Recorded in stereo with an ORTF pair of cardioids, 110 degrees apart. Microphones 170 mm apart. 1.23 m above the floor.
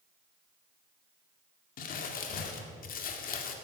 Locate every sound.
1.8 s crumpling: 60° left, 1.9 m